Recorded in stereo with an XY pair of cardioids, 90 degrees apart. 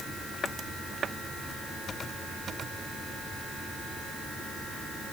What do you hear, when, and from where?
Only background noise.